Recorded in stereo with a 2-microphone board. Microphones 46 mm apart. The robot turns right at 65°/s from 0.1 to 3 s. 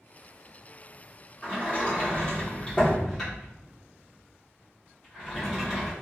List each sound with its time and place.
1.4 s a sliding door: 25° left (ahead or behind), 1.3 m; by 5.9 s 5° left (ahead or behind), 1.3 m